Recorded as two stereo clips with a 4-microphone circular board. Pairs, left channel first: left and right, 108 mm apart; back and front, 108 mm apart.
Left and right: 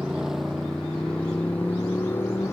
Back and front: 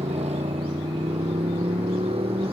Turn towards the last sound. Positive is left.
turn(degrees=25)